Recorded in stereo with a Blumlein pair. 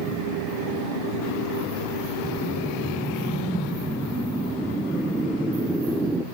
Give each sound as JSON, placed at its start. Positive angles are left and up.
{"t": 2.2, "sound": "a whoosh", "azimuth_deg": -5, "distance_m": 0.5}